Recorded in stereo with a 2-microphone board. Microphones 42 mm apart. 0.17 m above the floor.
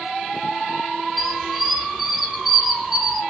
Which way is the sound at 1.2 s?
Centre (ahead or behind).